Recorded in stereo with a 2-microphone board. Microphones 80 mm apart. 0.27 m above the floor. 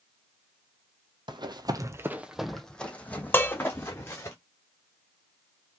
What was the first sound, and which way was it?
Running footsteps, 70° right (ahead or behind).